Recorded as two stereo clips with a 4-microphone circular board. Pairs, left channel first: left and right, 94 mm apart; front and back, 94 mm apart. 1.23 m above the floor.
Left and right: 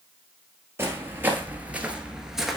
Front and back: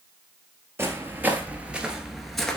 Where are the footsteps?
135° right, 1.4 m; by 2.6 s 10° right, 1.2 m.